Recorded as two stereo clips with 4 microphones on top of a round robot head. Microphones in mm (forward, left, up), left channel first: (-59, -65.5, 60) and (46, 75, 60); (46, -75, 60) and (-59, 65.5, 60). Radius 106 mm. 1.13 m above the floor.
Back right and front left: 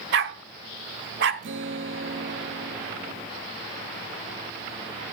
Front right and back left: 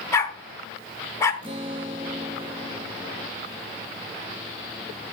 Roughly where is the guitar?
Ahead left.